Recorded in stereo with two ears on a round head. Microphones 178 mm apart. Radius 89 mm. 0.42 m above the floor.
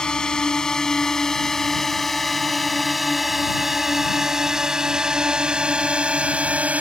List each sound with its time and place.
0.0 s a drone: 5° left (ahead or behind); by 6.8 s 10° right (ahead or behind)